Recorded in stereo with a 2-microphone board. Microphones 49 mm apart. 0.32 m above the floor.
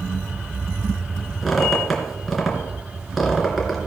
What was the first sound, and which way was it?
A squeak, centre (ahead or behind).